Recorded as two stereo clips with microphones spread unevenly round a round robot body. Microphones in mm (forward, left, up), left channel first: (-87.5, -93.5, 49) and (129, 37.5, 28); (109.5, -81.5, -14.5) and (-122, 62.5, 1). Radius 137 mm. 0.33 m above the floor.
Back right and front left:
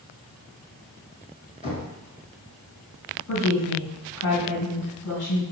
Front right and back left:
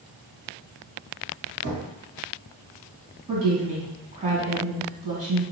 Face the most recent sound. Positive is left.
turn(degrees=-145)